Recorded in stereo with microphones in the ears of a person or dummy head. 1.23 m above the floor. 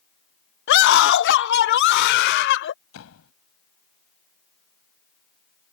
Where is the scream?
65° left (ahead or behind).